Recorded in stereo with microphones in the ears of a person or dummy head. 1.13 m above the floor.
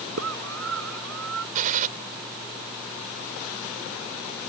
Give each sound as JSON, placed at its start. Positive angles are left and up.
{"t": 0.2, "sound": "a scream", "side_deg": -75}
{"t": 1.6, "sound": "a gunshot", "side_deg": -45}